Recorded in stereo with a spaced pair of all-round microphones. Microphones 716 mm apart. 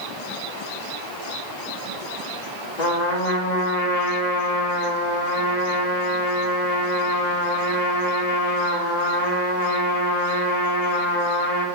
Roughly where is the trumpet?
Left.